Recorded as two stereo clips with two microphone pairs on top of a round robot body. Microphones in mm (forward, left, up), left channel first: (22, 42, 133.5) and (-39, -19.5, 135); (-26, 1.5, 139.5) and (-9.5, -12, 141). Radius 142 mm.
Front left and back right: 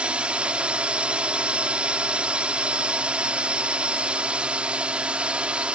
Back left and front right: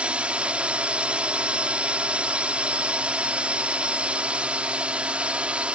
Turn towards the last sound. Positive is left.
turn(degrees=-60)